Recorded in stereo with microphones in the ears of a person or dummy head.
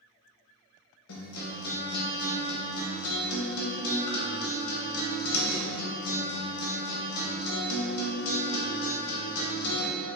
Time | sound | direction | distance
1.1 | a guitar | 85° left | 1.0 m